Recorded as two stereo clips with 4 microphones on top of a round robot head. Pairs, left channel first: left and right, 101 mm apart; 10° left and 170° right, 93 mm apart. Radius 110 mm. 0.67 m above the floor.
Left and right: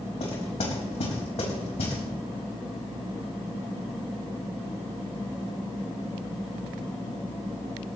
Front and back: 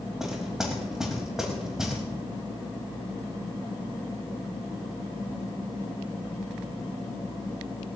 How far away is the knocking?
About 4.5 m.